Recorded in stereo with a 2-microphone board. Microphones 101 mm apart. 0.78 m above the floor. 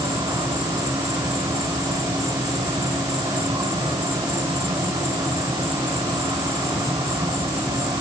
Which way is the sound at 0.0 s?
35° right (ahead or behind).